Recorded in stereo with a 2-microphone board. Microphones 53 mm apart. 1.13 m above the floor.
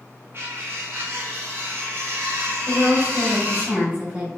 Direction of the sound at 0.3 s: 50° right (ahead or behind).